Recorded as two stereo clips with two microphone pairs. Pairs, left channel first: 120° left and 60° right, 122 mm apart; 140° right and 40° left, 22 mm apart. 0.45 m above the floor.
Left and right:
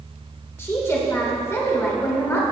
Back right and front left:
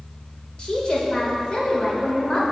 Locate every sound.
0.6 s a woman speaking: straight behind, 1.4 m